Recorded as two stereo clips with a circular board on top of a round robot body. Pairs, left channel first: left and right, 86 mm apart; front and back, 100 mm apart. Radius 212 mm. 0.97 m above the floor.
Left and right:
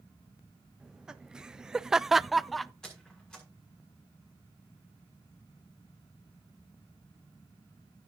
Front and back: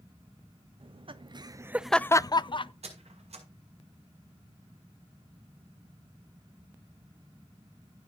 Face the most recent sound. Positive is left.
turn(degrees=170)